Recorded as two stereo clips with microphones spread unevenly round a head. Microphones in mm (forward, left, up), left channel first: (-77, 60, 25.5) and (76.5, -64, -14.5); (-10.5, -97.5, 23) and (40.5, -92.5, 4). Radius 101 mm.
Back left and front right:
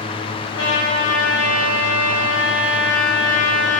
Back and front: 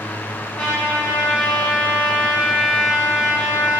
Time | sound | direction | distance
0.6 | a trumpet | 150° left | 1.5 m